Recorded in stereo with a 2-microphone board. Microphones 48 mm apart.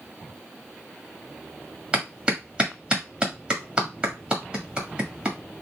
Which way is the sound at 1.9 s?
20° right (ahead or behind).